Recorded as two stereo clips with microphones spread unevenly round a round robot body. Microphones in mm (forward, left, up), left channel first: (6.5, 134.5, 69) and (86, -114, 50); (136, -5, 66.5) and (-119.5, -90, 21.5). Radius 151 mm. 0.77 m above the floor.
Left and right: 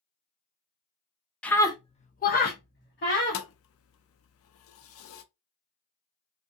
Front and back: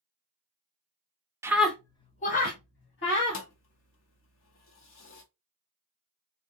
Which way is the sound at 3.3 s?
70° left.